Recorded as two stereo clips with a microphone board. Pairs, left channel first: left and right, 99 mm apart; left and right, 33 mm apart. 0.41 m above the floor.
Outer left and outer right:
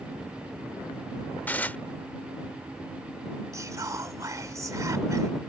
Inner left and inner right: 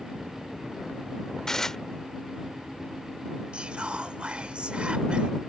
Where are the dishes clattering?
15° left (ahead or behind).